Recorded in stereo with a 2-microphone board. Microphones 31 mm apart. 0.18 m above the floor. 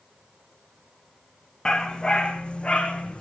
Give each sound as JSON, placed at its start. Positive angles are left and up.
{"t": 1.6, "sound": "a dog barking", "side_deg": 30, "distance_m": 3.0}